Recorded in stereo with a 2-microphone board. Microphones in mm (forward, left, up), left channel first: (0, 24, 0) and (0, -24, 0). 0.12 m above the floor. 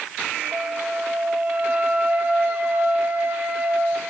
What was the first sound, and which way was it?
A flute, 35° right (ahead or behind).